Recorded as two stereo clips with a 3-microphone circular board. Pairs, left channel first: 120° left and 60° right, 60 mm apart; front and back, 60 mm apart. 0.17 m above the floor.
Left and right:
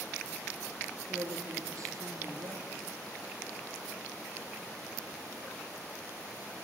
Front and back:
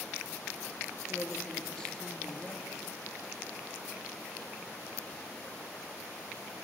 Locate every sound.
1.1 s a woman speaking: 75° right, 3.5 m